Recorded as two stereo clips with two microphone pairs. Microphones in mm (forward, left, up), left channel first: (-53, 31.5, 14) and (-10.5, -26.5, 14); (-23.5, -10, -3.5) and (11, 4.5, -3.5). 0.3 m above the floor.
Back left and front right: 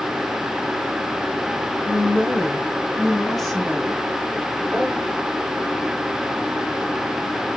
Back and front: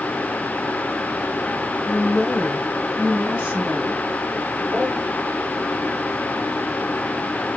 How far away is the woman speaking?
About 1.3 m.